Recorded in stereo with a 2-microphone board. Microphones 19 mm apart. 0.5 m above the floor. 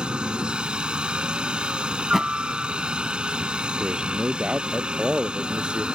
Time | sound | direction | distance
0.0 | a helicopter | 70° right (ahead or behind) | ?
2.0 | a thud | 20° right (ahead or behind) | ?
3.8 | a man speaking | 70° right (ahead or behind) | ?